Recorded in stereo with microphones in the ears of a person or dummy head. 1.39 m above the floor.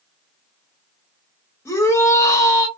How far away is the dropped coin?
No dropped coin in this recording.